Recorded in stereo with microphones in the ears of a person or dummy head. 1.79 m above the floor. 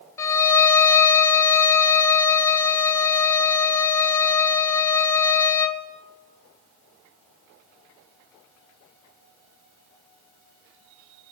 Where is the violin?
15° left (ahead or behind), 1.0 m.